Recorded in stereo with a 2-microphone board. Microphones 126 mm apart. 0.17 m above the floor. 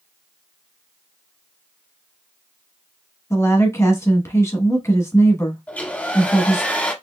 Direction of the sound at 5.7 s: 10° left (ahead or behind).